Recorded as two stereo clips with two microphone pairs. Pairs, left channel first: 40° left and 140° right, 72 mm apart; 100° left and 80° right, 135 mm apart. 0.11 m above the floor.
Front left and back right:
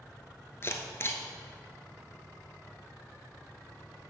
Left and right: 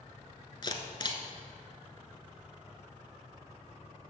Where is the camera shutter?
65° left, 0.8 m.